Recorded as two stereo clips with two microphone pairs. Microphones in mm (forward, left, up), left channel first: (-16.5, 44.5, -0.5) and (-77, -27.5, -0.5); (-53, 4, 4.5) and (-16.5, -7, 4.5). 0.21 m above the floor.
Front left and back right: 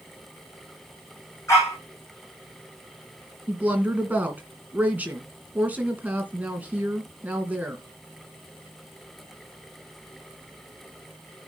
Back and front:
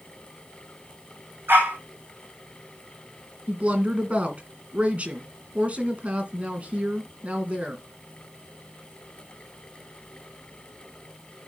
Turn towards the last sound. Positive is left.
turn(degrees=-60)